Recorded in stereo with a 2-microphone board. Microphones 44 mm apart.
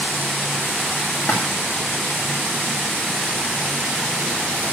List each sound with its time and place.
1.2 s a splash: 45° left (ahead or behind), 4 m